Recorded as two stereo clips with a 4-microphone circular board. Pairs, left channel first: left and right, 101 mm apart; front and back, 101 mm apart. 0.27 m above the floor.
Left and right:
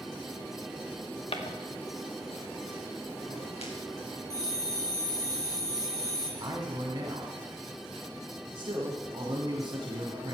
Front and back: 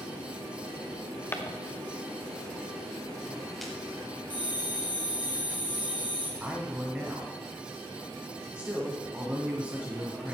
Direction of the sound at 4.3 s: 30° right.